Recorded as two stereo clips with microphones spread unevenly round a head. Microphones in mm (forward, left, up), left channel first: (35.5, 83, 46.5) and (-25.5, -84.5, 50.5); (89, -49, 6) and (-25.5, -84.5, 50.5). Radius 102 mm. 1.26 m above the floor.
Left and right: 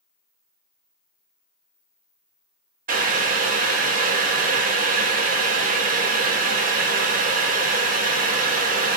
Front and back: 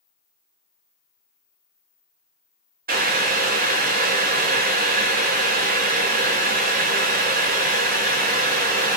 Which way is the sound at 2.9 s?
155° right.